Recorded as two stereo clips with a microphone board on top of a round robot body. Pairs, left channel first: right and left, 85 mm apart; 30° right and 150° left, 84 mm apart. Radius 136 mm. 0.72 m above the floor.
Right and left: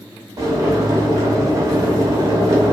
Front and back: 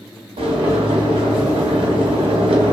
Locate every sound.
0.4 s boiling: 140° left, 0.6 m